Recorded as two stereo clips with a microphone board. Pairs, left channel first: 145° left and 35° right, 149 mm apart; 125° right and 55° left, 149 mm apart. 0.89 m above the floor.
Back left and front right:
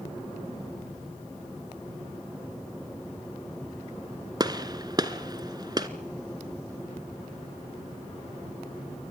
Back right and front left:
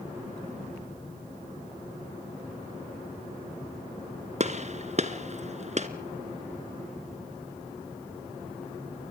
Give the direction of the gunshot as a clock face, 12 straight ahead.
11 o'clock.